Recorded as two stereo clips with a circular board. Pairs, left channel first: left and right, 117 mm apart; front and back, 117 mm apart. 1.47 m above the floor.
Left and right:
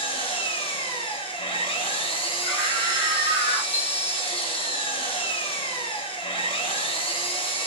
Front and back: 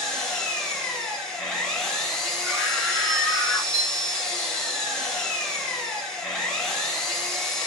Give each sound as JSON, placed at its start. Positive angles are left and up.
{"t": 0.0, "sound": "an engine running", "azimuth_deg": 80, "distance_m": 0.7}
{"t": 2.4, "sound": "a scream", "azimuth_deg": -115, "distance_m": 1.3}
{"t": 3.7, "sound": "a chime", "azimuth_deg": -145, "distance_m": 2.5}